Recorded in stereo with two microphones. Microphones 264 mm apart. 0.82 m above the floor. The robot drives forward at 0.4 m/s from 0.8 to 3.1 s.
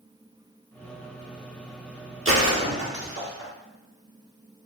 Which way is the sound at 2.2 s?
50° right (ahead or behind).